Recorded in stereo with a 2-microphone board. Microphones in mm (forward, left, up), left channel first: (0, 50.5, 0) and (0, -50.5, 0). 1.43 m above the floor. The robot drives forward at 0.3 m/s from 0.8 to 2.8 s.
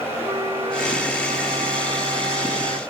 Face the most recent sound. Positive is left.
turn(degrees=-75)  # may be behind; listen again after turning